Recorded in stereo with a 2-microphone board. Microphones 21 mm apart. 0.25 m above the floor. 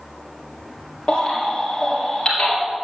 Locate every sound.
1.1 s a baby crying: 40° left (ahead or behind), 2.5 m